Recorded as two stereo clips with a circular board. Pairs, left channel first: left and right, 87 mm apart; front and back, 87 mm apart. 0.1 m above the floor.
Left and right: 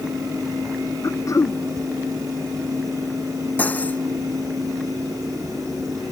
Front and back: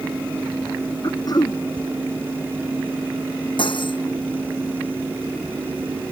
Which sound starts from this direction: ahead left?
Throat clearing, at 1.0 s.